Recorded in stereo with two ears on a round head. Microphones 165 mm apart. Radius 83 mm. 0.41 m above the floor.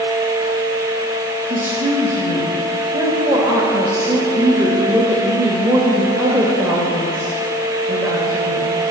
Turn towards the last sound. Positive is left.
turn(degrees=-10)  # may be behind; listen again after turning